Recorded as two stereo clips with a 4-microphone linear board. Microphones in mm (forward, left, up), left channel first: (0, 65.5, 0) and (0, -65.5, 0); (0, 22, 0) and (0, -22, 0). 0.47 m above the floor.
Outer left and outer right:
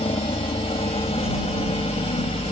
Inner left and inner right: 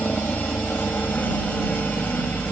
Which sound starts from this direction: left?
A helicopter, at 0.0 s.